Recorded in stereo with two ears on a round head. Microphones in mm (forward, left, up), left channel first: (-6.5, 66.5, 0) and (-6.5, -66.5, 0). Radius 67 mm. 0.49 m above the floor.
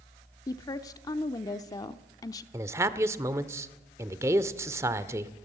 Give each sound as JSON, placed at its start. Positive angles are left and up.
{"t": 0.5, "sound": "a woman speaking", "side_deg": 25, "distance_m": 0.8}
{"t": 2.5, "sound": "a man speaking", "side_deg": -20, "distance_m": 1.2}